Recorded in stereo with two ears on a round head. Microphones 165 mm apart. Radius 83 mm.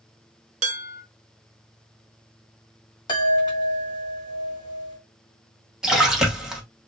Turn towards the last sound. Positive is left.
turn(degrees=-5)  # may be behind; listen again after turning